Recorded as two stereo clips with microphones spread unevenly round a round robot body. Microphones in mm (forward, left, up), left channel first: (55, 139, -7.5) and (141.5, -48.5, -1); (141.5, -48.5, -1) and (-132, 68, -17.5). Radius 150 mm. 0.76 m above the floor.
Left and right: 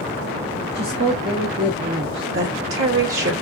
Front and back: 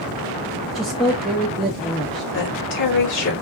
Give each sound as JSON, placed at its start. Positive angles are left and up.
{"t": 0.8, "sound": "a woman speaking", "azimuth_deg": -115, "distance_m": 0.7}
{"t": 2.3, "sound": "a woman speaking", "azimuth_deg": -75, "distance_m": 3.0}